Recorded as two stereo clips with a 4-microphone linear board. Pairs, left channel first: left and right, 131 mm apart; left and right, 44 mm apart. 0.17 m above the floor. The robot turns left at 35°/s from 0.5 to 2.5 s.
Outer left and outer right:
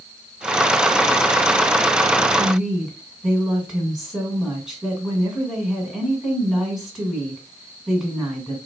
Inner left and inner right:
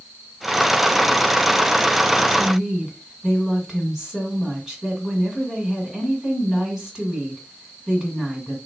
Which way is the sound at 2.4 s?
Centre (ahead or behind).